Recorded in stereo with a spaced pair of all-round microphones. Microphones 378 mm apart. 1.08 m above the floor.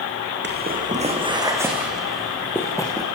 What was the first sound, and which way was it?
Footsteps, 25° right (ahead or behind).